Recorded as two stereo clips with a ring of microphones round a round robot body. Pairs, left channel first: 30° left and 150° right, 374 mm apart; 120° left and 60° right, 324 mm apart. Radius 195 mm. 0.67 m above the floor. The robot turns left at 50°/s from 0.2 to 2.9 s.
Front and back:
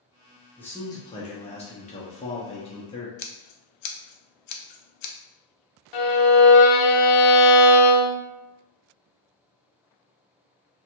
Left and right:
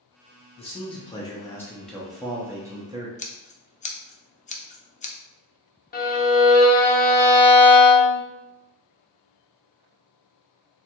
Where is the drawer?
I don't hear a drawer.